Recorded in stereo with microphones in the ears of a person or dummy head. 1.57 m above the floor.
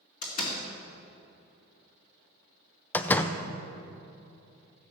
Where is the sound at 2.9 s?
10° left (ahead or behind), 0.6 m.